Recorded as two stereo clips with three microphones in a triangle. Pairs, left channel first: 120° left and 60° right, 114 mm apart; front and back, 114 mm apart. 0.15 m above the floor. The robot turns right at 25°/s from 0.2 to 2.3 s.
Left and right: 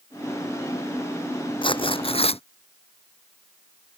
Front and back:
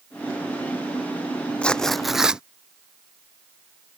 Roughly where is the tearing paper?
Left.